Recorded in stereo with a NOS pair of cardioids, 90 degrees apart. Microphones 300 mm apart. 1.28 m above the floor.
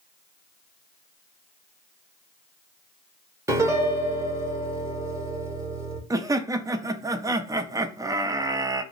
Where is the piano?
10° right, 0.9 m.